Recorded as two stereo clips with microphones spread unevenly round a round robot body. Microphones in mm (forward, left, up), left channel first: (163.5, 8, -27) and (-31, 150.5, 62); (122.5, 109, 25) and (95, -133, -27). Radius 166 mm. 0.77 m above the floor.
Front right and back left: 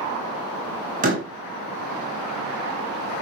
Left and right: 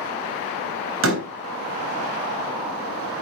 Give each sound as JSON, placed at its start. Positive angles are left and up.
{"t": 1.0, "sound": "a door slam", "azimuth_deg": -145, "distance_m": 3.5}